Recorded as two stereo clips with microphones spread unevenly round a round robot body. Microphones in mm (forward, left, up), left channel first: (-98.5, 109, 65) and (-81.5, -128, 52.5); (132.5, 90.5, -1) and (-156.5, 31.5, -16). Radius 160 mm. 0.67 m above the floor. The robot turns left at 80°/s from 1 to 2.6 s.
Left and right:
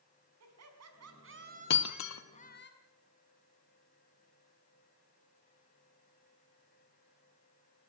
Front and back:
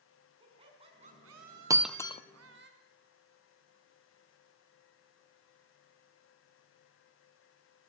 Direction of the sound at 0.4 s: 95° right.